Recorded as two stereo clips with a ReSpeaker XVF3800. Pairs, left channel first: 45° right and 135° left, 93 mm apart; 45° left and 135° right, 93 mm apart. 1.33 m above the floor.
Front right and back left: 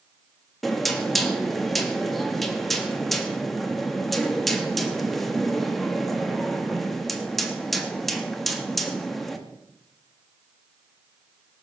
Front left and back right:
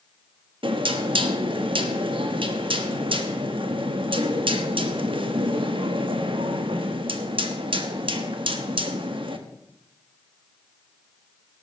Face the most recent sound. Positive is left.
turn(degrees=-130)